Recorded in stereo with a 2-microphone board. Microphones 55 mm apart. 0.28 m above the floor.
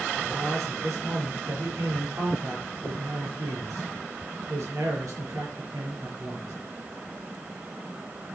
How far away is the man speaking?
About 4.5 m.